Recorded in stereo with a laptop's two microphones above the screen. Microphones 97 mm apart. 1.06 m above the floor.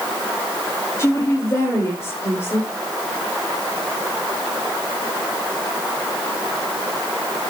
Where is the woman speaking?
30° left (ahead or behind), 2.5 m.